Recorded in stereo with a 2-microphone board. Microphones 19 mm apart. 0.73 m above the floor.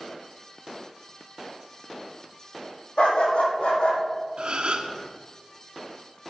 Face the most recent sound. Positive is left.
turn(degrees=-60)  # may be behind; listen again after turning